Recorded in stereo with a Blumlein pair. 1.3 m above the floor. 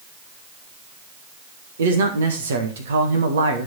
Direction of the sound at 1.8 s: 65° right.